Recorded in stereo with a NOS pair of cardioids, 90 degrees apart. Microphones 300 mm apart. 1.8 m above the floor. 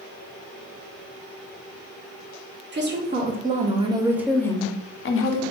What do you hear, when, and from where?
2.7 s a woman speaking: 40° right, 1.5 m; by 5.4 s 70° left, 0.7 m